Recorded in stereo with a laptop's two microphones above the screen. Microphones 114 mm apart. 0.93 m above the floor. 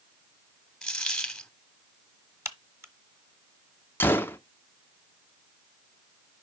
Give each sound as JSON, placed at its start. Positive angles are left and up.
{"t": 0.8, "sound": "a dropped coin", "side_deg": 5, "distance_m": 0.7}
{"t": 2.5, "sound": "a crack", "side_deg": -25, "distance_m": 1.1}
{"t": 4.0, "sound": "a gunshot", "side_deg": 20, "distance_m": 0.6}